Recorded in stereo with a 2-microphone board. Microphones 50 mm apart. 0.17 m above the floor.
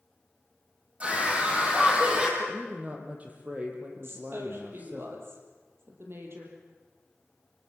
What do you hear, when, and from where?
1.0 s a scream: 25° right (ahead or behind), 6.5 m; by 2.3 s 20° right (ahead or behind), 6.5 m
2.4 s a woman speaking: 30° right (ahead or behind), 4 m
4.0 s a woman speaking: 55° right (ahead or behind), 5 m